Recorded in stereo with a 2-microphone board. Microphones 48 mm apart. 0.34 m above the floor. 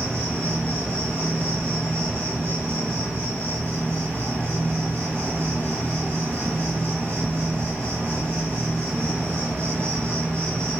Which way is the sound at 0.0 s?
65° right (ahead or behind).